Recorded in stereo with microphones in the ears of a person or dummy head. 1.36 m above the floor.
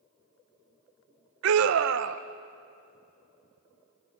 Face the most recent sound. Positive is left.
turn(degrees=-65)  # may be behind; listen again after turning